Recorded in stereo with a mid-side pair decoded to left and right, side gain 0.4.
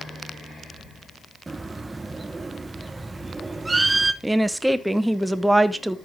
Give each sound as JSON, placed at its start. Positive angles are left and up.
{"t": 1.5, "sound": "a bird", "azimuth_deg": -25, "distance_m": 1.0}
{"t": 4.2, "sound": "a woman speaking", "azimuth_deg": -10, "distance_m": 1.2}